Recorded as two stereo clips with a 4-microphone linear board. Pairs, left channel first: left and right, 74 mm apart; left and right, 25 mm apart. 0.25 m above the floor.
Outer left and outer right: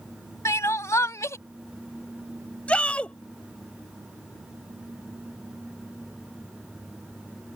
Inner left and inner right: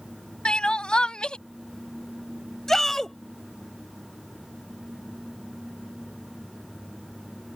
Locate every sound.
0.5 s crying: 40° left (ahead or behind)
2.7 s a shout: 15° left (ahead or behind)